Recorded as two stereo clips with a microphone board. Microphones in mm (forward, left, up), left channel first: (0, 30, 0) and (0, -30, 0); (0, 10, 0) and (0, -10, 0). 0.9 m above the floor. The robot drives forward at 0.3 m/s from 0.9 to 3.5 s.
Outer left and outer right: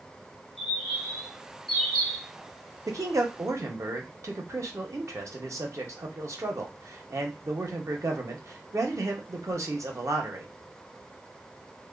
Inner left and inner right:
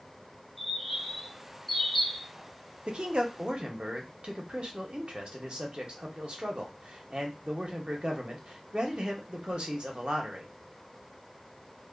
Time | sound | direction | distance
0.6 | a bird | 5° right (ahead or behind) | 1.4 m
2.9 | a man speaking | 65° right (ahead or behind) | 0.6 m